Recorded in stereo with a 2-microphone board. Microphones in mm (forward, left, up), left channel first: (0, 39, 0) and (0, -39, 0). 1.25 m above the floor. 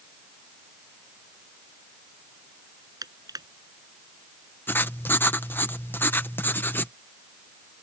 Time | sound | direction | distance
3.0 | crushing | 60° right (ahead or behind) | ?
4.7 | writing | 30° left (ahead or behind) | ?